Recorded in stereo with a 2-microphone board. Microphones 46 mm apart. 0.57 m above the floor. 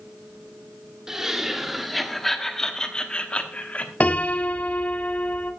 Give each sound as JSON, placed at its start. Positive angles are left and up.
{"t": 1.1, "sound": "laughter", "side_deg": -15, "distance_m": 1.6}
{"t": 4.0, "sound": "a piano", "side_deg": 35, "distance_m": 0.9}